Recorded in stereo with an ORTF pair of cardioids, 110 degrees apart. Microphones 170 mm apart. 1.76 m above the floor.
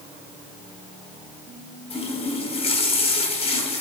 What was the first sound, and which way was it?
A running tap, 35° left.